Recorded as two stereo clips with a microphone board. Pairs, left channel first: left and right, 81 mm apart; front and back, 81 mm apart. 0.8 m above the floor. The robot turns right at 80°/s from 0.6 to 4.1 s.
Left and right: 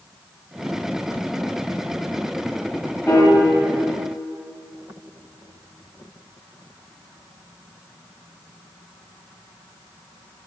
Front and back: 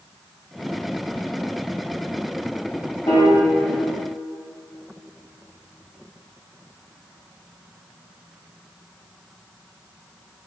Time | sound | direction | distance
3.1 | a piano | 30° left | 0.9 m